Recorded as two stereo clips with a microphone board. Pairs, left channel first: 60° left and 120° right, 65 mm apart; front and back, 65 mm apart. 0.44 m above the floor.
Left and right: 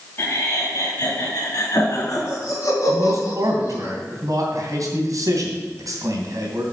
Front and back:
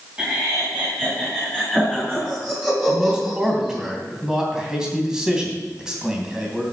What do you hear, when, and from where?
0.2 s laughter: 105° left, 2.5 m; by 3.9 s 100° left, 4.5 m
2.9 s a man speaking: 100° right, 3 m